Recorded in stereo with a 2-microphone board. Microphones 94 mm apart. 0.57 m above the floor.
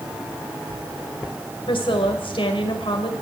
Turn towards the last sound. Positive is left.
turn(degrees=65)  # may be behind; listen again after turning